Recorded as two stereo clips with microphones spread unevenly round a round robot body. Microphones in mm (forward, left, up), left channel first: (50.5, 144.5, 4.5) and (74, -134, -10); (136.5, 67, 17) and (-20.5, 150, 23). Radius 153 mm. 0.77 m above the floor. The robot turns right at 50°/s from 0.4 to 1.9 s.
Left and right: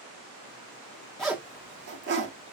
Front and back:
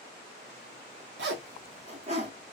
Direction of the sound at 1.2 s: 175° right.